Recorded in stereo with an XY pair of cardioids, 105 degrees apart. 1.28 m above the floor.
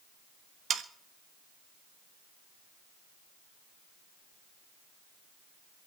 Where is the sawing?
45° right, 1.4 m.